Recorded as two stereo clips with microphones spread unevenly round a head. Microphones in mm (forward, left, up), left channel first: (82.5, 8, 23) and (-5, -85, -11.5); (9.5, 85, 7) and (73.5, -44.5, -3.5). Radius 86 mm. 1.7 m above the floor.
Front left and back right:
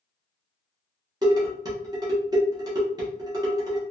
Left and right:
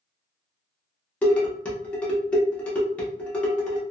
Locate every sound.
1.2 s dishes clattering: 170° left, 0.8 m